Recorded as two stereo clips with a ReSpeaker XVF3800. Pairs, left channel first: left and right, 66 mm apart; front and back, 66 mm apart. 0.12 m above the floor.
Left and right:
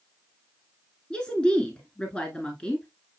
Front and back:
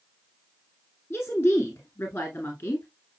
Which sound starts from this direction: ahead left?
A woman speaking, at 1.1 s.